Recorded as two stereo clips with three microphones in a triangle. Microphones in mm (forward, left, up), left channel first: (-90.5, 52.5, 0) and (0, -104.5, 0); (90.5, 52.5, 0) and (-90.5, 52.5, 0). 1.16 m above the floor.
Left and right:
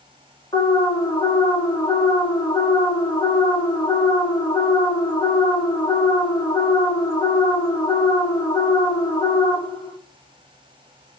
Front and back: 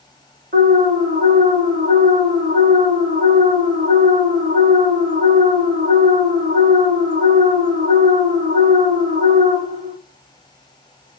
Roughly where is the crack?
I don't hear a crack.